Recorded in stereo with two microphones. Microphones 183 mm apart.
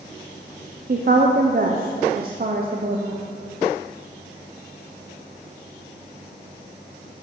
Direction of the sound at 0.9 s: 55° right (ahead or behind).